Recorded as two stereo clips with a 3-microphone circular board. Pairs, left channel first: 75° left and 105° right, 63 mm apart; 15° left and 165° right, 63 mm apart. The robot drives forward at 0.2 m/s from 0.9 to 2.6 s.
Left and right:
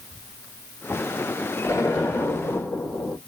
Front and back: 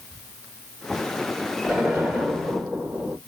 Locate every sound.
1.6 s an explosion: 115° left, 1.6 m; by 3.2 s 120° left, 1.7 m